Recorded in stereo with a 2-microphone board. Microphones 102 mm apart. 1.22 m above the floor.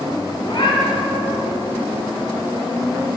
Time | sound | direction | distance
0.4 | a cat meowing | 55° left (ahead or behind) | 1.8 m